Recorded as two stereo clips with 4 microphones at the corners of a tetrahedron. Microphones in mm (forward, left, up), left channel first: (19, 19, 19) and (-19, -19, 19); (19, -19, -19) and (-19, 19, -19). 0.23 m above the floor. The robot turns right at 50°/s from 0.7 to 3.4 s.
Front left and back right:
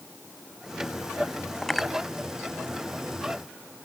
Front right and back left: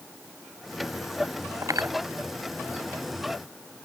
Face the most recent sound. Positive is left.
turn(degrees=-145)